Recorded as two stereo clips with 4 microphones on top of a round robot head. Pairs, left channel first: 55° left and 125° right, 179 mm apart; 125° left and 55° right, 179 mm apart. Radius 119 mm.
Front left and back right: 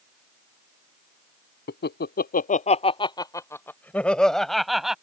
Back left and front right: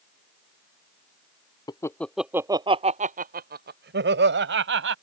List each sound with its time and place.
1.7 s laughter: 60° left; by 5.0 s 40° right